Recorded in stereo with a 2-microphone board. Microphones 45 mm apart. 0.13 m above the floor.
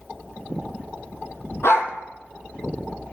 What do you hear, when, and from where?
1.6 s a dog barking: 80° left, 0.9 m